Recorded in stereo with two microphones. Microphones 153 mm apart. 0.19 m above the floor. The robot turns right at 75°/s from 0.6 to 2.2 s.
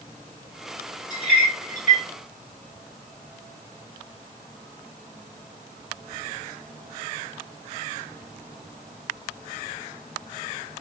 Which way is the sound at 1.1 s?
30° left (ahead or behind).